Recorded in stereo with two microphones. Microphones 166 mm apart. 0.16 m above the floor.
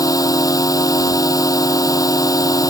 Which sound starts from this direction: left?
A drone, at 0.0 s.